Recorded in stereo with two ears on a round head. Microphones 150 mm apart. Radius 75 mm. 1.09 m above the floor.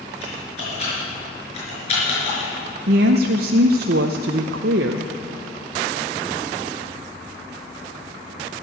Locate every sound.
0.2 s typing on a keyboard: 35° left (ahead or behind), 5.5 m
2.9 s a woman speaking: 60° right (ahead or behind), 0.6 m